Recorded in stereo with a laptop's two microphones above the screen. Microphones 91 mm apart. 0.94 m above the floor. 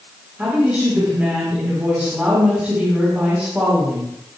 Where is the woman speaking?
15° right (ahead or behind), 3.5 m.